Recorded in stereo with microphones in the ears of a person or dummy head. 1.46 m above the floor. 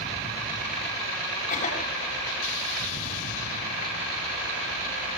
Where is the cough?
35° left (ahead or behind), 6.5 m.